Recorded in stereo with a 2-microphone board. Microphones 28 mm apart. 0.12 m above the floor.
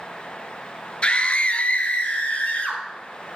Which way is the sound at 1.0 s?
40° left (ahead or behind).